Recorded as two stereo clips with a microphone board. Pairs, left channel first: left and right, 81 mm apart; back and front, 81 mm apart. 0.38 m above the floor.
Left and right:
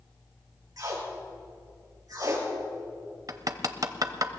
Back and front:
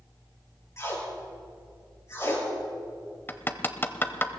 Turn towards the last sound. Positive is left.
turn(degrees=-120)